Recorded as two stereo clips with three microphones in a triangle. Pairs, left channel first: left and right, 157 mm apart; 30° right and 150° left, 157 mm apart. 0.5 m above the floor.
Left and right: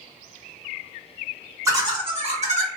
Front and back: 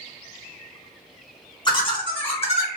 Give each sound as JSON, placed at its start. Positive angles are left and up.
{"t": 1.6, "sound": "laughter", "azimuth_deg": -40, "distance_m": 1.1}